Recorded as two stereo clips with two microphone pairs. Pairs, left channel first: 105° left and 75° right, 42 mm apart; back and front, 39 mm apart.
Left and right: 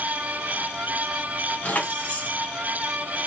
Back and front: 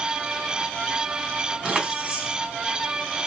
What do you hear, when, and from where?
1.6 s keys jangling: 60° left, 1.4 m